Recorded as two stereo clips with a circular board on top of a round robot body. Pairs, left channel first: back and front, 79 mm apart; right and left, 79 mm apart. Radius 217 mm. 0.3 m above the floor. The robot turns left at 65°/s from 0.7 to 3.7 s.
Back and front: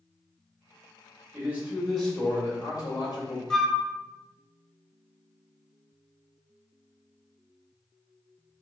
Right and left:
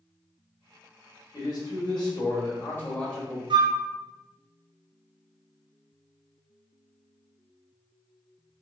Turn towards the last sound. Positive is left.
turn(degrees=85)